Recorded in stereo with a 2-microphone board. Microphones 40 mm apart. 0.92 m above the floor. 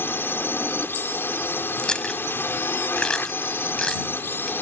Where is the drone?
65° left (ahead or behind).